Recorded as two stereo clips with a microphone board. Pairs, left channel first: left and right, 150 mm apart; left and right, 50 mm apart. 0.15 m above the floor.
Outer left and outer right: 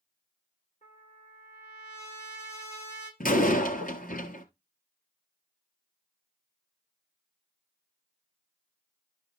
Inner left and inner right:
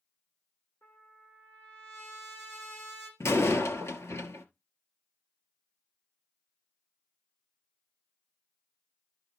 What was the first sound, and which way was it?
A trumpet, 45° left (ahead or behind).